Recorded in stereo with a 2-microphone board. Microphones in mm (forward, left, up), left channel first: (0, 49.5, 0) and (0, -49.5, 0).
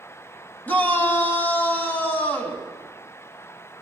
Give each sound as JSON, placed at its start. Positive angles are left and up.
{"t": 0.7, "sound": "a shout", "side_deg": 20, "distance_m": 2.5}